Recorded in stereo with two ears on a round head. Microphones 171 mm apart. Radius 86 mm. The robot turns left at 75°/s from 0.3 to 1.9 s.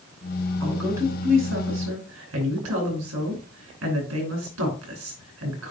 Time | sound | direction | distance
0.6 | a woman speaking | 10° left (ahead or behind) | 5 m